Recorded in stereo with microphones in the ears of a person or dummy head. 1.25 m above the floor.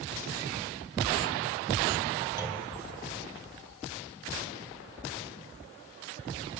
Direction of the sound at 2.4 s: 15° right (ahead or behind).